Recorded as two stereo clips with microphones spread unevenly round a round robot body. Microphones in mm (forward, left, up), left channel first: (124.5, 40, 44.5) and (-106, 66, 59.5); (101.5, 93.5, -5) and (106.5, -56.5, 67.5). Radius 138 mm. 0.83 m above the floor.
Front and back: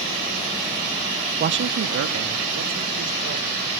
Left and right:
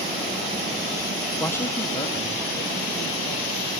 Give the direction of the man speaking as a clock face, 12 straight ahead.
8 o'clock.